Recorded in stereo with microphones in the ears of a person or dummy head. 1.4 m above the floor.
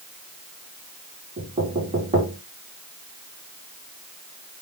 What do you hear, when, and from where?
1.4 s knocking: 35° right (ahead or behind), 4.5 m